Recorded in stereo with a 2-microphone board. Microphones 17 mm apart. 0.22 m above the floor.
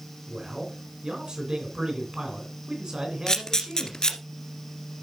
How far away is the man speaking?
About 2.5 m.